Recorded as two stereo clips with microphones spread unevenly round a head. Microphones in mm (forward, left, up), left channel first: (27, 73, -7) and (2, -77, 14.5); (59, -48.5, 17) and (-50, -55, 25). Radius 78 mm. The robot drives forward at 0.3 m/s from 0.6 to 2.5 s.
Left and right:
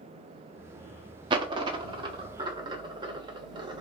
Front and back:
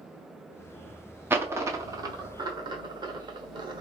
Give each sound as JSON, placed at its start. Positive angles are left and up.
{"t": 1.3, "sound": "a dropped coin", "azimuth_deg": -120, "distance_m": 0.8}